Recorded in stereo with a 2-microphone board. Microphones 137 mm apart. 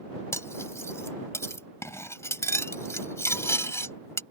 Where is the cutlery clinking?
20° left (ahead or behind).